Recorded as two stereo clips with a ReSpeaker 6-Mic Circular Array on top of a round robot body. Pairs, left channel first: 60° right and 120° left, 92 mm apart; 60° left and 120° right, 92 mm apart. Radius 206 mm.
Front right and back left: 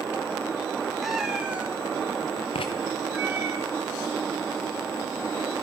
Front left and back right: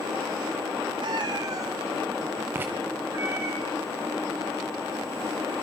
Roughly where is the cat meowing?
Behind right.